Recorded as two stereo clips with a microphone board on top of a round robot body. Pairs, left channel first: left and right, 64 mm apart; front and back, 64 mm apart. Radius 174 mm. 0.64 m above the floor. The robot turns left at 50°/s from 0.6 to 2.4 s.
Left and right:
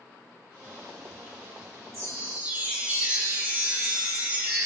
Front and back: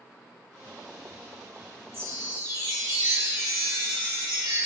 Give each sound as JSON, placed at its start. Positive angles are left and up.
{"t": 1.9, "sound": "a chime", "azimuth_deg": -130, "distance_m": 3.0}